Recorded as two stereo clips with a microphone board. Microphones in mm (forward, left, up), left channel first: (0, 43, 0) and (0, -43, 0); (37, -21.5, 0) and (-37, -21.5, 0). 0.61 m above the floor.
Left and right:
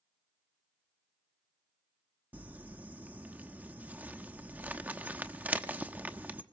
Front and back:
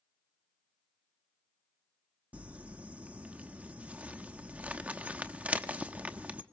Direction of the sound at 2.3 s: 135° right.